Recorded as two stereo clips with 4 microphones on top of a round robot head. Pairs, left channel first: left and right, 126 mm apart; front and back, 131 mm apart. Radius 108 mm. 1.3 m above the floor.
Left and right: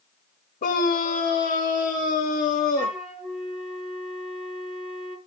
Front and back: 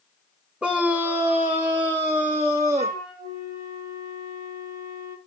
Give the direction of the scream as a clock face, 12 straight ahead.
9 o'clock.